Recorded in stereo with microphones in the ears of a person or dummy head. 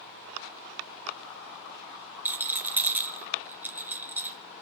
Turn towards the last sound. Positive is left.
turn(degrees=-10)  # may be behind; listen again after turning